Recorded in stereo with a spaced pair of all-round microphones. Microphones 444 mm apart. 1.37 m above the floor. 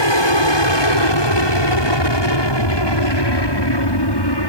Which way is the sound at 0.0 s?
75° left (ahead or behind).